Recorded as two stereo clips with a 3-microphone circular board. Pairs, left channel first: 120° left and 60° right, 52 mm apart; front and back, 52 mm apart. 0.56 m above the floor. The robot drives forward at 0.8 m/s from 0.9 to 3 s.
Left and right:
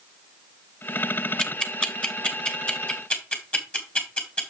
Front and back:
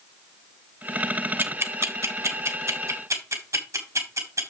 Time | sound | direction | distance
1.4 | ticking | 165° right | 0.9 m